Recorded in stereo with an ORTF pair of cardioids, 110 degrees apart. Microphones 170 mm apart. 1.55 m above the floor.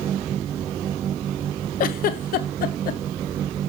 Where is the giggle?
60° left, 0.6 m.